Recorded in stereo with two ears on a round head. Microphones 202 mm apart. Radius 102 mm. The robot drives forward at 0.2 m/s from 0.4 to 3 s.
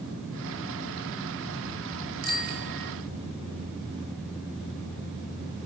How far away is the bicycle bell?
About 4 m.